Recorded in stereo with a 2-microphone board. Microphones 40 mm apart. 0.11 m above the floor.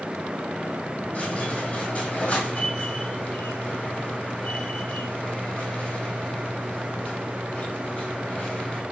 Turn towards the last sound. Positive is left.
turn(degrees=35)  # may be behind; listen again after turning